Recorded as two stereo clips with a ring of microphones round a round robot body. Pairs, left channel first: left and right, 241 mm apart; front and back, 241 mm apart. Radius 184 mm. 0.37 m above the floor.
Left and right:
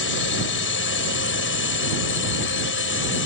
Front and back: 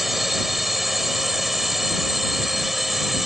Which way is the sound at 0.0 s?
90° left.